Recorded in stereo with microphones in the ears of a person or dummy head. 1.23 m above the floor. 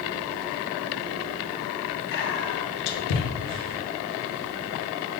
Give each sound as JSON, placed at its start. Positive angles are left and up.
{"t": 2.1, "sound": "whispering", "side_deg": 60, "distance_m": 0.7}